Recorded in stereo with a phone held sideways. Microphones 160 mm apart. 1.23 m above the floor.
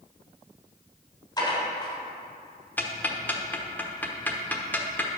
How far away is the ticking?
About 1.0 m.